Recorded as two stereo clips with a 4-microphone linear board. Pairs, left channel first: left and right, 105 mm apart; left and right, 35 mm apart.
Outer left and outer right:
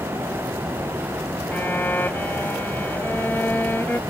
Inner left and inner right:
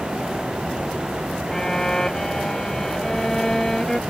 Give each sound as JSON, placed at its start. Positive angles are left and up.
{"t": 1.5, "sound": "a violin", "side_deg": 20}